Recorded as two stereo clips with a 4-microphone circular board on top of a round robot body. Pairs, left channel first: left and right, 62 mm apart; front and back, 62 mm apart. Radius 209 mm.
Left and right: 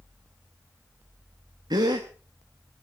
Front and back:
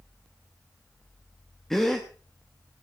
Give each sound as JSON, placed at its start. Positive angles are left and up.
{"t": 1.7, "sound": "a gasp", "azimuth_deg": -85, "distance_m": 0.7}